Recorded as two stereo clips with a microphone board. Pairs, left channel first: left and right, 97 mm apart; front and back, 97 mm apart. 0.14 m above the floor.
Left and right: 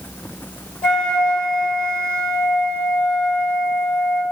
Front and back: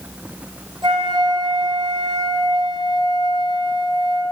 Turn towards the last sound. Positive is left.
turn(degrees=170)